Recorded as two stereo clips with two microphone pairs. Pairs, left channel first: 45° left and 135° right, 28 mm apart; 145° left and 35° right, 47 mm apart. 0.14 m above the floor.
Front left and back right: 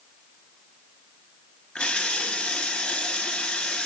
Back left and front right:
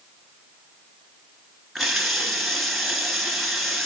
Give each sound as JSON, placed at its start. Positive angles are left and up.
{"t": 1.8, "sound": "a running tap", "azimuth_deg": 50, "distance_m": 1.4}